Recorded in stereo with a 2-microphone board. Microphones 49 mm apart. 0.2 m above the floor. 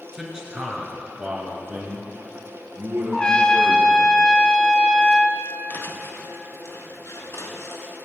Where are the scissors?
No scissors in this recording.